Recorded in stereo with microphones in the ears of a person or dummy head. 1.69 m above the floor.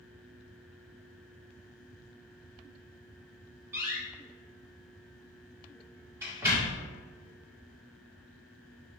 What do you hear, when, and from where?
3.7 s a door slam: 20° right (ahead or behind), 1.8 m